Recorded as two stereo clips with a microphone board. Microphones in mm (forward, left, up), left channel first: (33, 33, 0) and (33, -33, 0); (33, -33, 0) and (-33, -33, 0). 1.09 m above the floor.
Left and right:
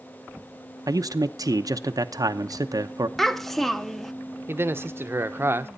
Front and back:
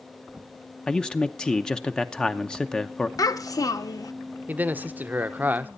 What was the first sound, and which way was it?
A man speaking, 75° right.